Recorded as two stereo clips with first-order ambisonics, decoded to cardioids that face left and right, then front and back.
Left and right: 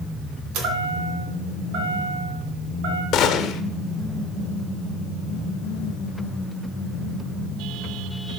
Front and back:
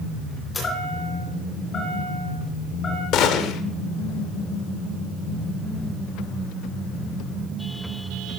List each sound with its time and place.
0.5 s a chime: 70° right, 2.5 m
3.1 s a gunshot: 40° left, 0.9 m